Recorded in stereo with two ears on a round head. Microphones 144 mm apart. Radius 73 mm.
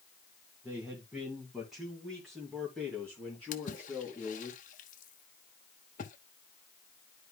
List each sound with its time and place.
0.6 s a man speaking: 10° right (ahead or behind), 2 m; by 4.5 s 10° left (ahead or behind), 4 m
3.5 s a splash: 50° left (ahead or behind), 1.0 m